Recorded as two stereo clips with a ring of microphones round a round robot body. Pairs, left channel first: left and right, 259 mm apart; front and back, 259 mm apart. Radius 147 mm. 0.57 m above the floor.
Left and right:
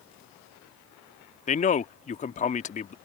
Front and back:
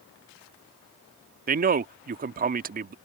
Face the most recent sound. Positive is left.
turn(degrees=140)